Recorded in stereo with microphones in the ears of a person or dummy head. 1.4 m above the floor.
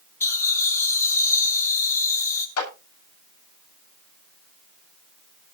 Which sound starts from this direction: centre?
Laughter, at 0.2 s.